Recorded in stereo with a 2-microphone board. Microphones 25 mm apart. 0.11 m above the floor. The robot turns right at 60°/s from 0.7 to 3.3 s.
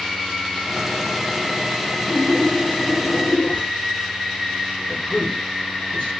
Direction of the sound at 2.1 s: 35° left.